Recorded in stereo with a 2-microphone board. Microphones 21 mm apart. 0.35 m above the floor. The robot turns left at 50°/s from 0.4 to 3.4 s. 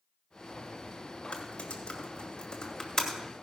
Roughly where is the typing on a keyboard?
Left.